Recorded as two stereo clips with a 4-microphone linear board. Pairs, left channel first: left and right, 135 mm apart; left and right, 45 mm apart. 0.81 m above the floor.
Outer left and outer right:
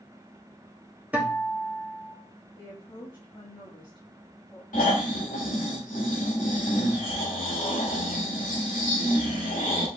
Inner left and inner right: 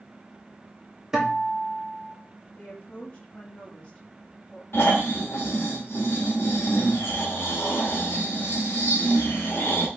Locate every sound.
1.1 s a guitar: 10° right (ahead or behind), 1.4 m
2.6 s a woman speaking: 35° left (ahead or behind), 1.1 m
4.7 s snoring: 85° left, 1.7 m